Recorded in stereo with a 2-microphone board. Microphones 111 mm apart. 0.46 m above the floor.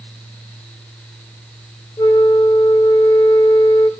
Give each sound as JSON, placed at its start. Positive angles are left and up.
{"t": 2.0, "sound": "a flute", "side_deg": 35, "distance_m": 0.6}